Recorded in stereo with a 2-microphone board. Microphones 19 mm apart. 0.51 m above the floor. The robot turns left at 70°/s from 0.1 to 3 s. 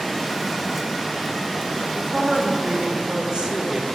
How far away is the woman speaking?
About 1.7 m.